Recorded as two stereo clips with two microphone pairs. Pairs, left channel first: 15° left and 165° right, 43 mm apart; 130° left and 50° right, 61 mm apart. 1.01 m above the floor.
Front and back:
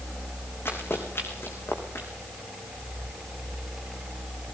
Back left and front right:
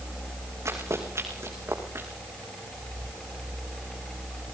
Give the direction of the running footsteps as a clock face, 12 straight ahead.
12 o'clock.